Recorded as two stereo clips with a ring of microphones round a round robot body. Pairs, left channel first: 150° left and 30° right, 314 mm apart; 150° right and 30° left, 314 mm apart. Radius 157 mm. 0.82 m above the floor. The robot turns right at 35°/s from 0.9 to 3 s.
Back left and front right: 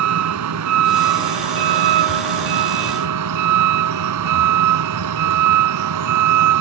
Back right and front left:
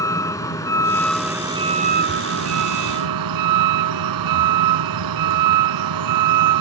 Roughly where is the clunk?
I don't hear a clunk.